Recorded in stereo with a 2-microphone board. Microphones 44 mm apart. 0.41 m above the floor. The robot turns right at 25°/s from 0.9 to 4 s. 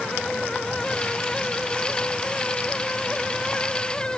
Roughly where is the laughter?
No laughter in this recording.